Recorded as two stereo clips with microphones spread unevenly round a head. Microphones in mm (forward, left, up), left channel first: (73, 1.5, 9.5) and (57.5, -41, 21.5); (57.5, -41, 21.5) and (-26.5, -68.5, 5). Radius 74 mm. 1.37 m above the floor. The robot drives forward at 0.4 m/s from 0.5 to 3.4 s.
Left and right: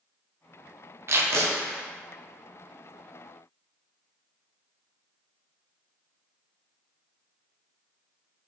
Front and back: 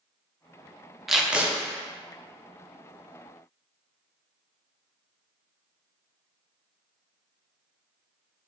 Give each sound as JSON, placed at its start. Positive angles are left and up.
{"t": 1.1, "sound": "tape being pulled", "azimuth_deg": -75, "distance_m": 0.7}